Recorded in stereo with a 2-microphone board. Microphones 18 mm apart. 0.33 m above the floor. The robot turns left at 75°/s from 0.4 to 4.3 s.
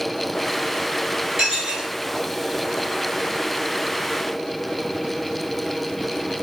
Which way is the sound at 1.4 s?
35° right.